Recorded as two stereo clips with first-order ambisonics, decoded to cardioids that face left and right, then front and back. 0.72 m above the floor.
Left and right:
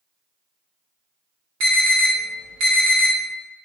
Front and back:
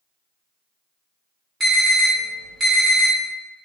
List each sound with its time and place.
1.6 s an alarm: 105° right, 1.7 m